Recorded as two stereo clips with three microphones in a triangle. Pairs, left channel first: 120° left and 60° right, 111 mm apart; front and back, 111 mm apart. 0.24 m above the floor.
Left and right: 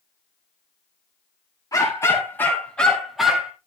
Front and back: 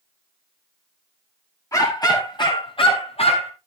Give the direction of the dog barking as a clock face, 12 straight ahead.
10 o'clock.